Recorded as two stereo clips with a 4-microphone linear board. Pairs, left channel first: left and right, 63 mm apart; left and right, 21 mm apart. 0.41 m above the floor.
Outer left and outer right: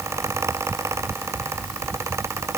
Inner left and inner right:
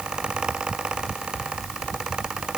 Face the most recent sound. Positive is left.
No sound to turn to.